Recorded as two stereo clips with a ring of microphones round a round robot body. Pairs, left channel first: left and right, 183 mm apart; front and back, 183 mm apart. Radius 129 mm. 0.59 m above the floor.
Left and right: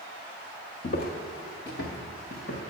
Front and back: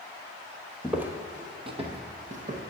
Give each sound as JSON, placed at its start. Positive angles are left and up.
{"t": 0.8, "sound": "footsteps", "azimuth_deg": 95, "distance_m": 0.8}